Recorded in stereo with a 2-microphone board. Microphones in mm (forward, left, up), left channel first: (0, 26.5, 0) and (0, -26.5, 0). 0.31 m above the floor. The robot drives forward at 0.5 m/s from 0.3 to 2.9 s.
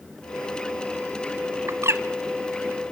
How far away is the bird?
About 0.9 m.